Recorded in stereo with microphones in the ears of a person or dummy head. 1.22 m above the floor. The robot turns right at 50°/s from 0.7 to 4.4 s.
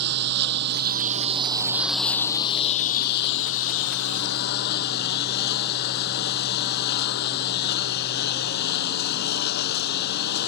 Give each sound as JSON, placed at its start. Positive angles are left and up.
{"t": 0.0, "sound": "a lawn mower", "azimuth_deg": -65}